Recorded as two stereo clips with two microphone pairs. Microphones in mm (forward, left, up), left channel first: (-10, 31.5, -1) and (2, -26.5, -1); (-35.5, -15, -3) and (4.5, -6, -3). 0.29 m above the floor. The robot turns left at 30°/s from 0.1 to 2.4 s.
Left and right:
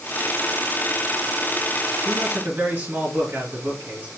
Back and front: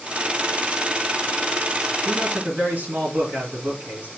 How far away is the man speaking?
About 3 m.